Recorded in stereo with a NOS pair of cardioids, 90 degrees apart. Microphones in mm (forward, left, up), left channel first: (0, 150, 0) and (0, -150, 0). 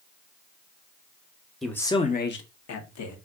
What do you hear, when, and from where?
1.6 s a man speaking: straight ahead, 0.9 m; by 3.2 s 75° left, 1.2 m